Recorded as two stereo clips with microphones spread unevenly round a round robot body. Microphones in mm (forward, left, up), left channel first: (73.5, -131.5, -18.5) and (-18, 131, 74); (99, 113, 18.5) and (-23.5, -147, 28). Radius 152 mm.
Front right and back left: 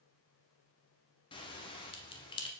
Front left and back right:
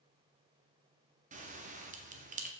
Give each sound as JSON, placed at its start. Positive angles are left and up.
{"t": 1.3, "sound": "a bell", "azimuth_deg": -70, "distance_m": 0.8}